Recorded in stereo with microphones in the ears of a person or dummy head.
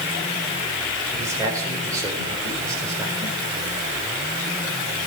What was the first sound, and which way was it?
A man speaking, 25° right (ahead or behind).